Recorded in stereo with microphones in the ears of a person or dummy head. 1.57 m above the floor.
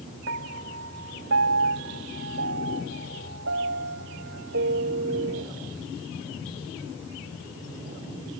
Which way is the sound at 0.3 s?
70° right (ahead or behind).